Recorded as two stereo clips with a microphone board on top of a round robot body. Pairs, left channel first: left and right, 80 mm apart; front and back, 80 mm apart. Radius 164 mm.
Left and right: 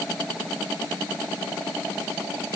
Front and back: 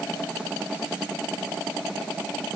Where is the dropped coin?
No dropped coin in this recording.